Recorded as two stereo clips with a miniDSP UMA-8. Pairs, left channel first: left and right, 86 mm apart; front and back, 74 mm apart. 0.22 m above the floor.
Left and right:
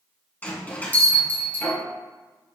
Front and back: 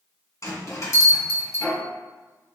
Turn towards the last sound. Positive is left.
turn(degrees=25)